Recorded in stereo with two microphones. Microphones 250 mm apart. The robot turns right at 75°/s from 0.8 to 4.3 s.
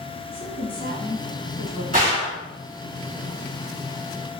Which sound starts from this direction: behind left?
A woman speaking, at 0.3 s.